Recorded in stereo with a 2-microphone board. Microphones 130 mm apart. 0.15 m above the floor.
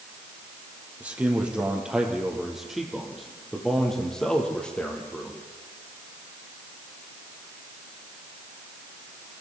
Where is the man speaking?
10° right (ahead or behind), 5.5 m; by 5.4 s 10° left (ahead or behind), 6.5 m.